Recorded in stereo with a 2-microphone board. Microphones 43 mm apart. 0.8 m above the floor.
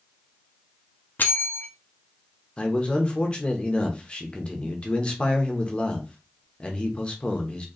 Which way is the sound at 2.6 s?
25° left (ahead or behind).